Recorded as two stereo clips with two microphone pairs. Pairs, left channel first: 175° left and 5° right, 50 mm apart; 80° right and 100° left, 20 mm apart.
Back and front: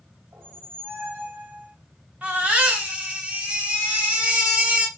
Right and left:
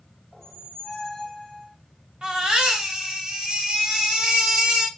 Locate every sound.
0.3 s a squeak: 5° left, 0.9 m
2.2 s a baby crying: 55° left, 1.2 m